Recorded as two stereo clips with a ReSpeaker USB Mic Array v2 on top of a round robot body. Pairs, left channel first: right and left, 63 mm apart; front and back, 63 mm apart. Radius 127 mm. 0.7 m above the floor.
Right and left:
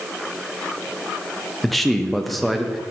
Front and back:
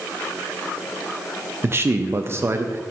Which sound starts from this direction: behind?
A man speaking, at 1.6 s.